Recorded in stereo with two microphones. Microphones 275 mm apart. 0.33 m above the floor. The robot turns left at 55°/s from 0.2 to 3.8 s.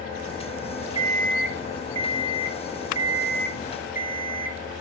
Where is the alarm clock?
15° right, 1.7 m; by 4.8 s 170° right, 1.7 m.